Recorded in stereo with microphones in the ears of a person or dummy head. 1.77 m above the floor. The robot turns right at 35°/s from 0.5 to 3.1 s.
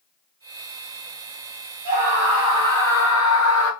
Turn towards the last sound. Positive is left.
turn(degrees=-5)